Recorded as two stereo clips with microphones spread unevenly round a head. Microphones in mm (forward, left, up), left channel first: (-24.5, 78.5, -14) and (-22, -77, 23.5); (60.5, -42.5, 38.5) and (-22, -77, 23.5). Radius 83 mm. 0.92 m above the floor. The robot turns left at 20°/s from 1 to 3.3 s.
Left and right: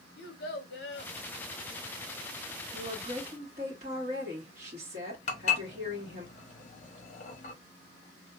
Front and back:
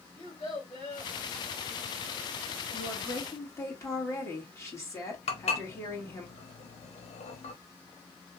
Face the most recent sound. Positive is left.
turn(degrees=40)